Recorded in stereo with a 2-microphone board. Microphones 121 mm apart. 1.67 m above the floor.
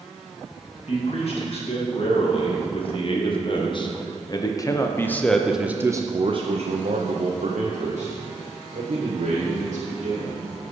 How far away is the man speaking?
About 2.5 m.